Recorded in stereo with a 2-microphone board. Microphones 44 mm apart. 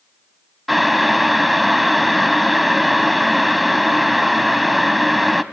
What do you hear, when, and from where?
0.7 s boiling: centre (ahead or behind), 0.5 m